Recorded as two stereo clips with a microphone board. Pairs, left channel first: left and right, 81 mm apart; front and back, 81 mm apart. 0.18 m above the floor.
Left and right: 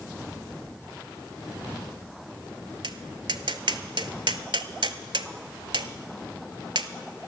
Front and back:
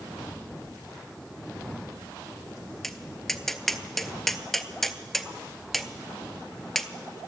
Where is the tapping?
85° right, 0.6 m.